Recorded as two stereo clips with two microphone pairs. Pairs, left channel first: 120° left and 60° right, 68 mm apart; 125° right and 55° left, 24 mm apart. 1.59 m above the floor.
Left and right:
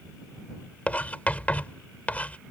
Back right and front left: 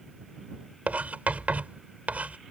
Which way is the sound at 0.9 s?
50° left.